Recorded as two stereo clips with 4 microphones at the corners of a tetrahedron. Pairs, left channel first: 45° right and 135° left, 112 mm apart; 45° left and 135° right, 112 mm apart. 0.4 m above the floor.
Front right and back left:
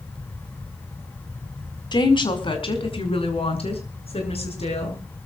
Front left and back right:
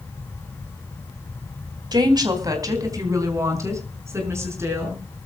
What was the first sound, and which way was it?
A woman speaking, 90° right.